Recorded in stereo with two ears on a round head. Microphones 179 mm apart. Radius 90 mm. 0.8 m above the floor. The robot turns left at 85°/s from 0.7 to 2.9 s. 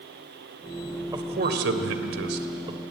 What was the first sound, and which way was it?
A man speaking, 15° right.